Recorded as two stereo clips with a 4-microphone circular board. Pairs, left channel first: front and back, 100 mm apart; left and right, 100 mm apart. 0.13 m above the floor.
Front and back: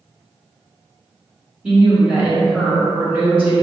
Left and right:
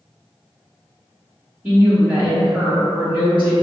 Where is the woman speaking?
125° right, 1.7 m.